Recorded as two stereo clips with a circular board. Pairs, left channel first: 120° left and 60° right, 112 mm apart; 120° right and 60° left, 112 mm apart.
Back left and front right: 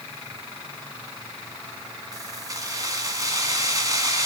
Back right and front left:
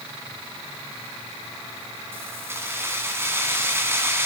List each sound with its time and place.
2.1 s keys jangling: 5° right, 1.5 m